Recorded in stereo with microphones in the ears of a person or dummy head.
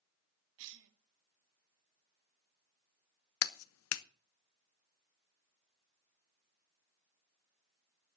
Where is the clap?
70° left (ahead or behind), 0.8 m.